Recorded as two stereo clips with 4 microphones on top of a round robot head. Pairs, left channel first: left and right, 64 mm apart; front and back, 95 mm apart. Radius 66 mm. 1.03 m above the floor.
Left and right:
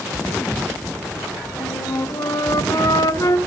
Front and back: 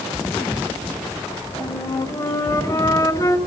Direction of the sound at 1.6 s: 55° left.